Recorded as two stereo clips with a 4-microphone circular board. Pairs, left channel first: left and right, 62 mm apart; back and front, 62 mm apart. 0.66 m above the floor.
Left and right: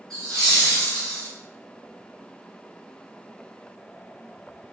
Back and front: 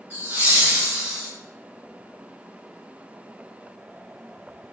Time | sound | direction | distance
0.1 | laughter | 15° left | 1.7 m